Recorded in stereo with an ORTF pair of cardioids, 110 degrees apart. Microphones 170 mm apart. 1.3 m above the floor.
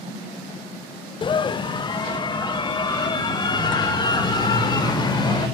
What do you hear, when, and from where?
1.2 s a scream: 30° left, 0.7 m; by 5.5 s 25° left, 5.5 m